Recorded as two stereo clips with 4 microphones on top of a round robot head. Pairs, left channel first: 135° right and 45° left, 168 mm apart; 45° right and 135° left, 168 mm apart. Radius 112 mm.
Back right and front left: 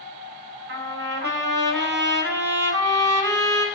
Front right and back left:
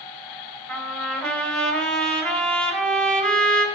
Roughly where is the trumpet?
Ahead left.